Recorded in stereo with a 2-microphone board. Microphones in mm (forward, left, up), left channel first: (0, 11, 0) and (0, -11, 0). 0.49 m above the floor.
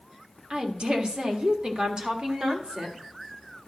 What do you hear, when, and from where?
0.5 s a woman speaking: 35° right (ahead or behind), 1.5 m